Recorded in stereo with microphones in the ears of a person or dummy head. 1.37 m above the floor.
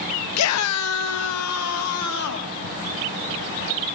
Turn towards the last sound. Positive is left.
turn(degrees=85)